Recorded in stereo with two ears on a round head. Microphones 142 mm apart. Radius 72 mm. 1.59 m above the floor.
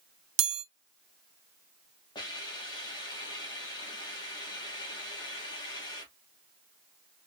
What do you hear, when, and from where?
0.4 s a chime: 80° right, 0.9 m
2.1 s a hiss: 30° left (ahead or behind), 1.9 m